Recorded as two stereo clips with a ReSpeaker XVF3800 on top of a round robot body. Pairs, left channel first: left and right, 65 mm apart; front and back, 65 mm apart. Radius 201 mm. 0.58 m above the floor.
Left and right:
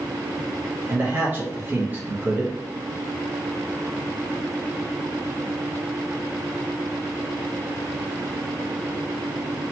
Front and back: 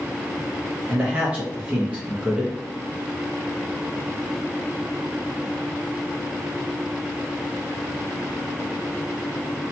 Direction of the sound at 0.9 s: 125° right.